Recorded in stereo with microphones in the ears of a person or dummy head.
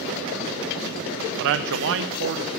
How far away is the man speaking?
About 0.5 m.